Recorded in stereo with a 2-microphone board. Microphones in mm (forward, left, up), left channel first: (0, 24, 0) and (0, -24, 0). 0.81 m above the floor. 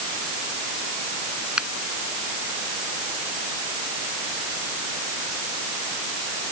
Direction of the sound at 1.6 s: 20° right (ahead or behind).